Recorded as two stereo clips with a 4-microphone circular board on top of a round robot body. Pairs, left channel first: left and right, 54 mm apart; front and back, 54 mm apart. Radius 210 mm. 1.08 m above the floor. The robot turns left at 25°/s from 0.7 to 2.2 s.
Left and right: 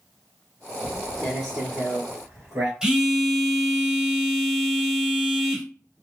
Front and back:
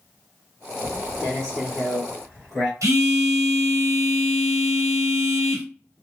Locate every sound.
0.8 s footsteps: 145° right, 1.1 m; by 2.7 s 70° right, 1.2 m
2.8 s a phone buzzing: 165° right, 1.0 m